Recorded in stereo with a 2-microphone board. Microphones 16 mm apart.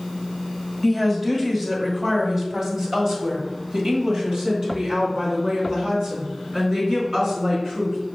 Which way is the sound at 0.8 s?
5° right (ahead or behind).